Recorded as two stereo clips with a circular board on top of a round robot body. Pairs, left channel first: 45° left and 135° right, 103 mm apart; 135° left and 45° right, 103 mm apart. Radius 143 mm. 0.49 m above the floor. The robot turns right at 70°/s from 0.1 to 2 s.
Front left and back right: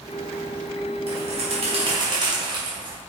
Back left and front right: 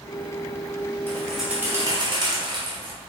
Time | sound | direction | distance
1.1 | a bird | 155° right | 2.5 m